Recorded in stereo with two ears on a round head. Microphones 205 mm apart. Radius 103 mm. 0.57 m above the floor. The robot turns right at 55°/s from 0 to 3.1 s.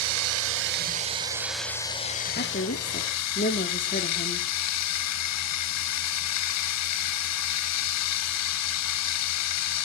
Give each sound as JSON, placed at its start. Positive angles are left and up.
{"t": 0.0, "sound": "running water", "azimuth_deg": -85, "distance_m": 0.9}
{"t": 2.4, "sound": "a woman speaking", "azimuth_deg": 70, "distance_m": 1.3}